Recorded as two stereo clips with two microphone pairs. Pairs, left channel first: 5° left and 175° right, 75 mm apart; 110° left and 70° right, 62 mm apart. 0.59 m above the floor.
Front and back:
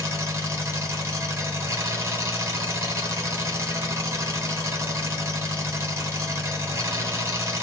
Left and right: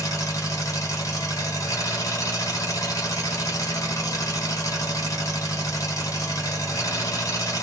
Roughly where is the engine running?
Behind left.